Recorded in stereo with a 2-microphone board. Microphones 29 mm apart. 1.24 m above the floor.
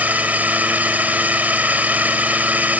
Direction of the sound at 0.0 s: 80° right.